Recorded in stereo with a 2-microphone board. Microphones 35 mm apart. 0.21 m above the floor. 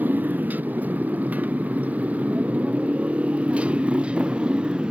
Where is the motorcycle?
60° right (ahead or behind); by 4.9 s 30° right (ahead or behind).